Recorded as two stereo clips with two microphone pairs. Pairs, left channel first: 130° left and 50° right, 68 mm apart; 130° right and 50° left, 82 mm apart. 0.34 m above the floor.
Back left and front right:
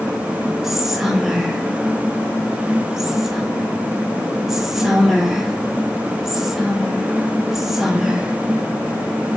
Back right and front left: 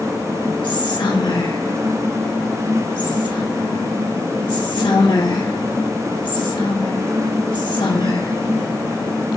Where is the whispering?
135° right, 3 m.